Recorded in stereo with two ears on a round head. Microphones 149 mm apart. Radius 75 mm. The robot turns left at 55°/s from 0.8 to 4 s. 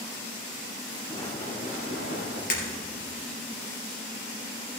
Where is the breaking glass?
60° left (ahead or behind), 3 m; by 2.6 s 50° left (ahead or behind), 3 m.